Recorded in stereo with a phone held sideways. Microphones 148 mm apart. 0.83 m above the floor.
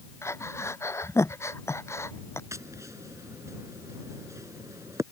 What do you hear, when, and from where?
0.2 s breathing: 20° left (ahead or behind)
2.5 s tapping: 20° right (ahead or behind)